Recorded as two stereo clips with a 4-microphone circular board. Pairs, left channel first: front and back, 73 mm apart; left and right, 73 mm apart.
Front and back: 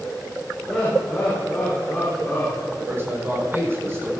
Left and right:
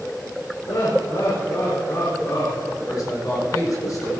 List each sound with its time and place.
0.7 s laughter: 85° left, 4.5 m; by 2.7 s 65° left, 4.5 m
2.8 s a man speaking: 125° left, 6.5 m